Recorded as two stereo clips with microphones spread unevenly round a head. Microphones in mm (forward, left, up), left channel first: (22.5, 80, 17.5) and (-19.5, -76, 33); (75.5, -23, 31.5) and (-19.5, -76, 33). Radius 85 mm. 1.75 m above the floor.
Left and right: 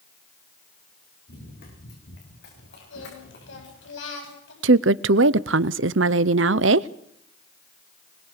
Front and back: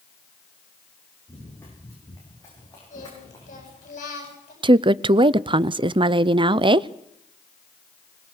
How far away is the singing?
About 9.5 m.